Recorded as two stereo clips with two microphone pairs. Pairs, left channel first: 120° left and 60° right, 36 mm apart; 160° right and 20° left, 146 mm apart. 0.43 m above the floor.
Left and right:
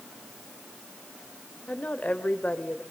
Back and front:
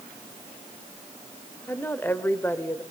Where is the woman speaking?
130° left, 1.6 m.